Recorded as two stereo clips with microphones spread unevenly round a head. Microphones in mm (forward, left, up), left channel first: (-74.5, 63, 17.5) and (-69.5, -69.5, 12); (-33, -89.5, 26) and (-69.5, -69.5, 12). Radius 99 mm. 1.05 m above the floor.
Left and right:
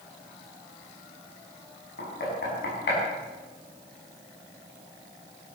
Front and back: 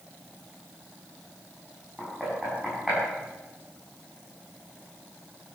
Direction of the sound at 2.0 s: 65° left.